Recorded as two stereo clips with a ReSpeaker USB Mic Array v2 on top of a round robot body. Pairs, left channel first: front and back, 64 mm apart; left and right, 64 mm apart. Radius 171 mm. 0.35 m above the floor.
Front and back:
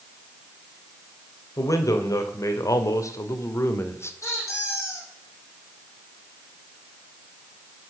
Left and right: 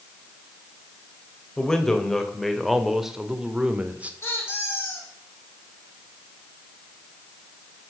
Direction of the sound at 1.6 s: 10° left.